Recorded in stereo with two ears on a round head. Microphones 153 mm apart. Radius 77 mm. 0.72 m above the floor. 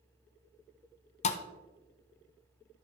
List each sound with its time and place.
1.2 s a thud: 40° left (ahead or behind), 0.7 m